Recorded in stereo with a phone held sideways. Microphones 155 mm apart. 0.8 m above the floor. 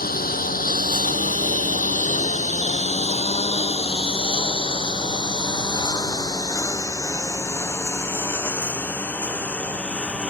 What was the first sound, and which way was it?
A lawn mower, 70° left (ahead or behind).